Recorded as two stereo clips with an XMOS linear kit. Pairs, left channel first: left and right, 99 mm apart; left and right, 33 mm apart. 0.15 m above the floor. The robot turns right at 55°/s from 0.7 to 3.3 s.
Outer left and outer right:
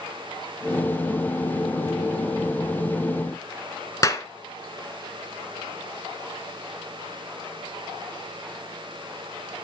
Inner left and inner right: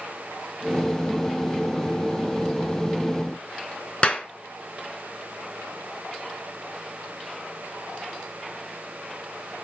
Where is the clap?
35° left (ahead or behind), 1.1 m.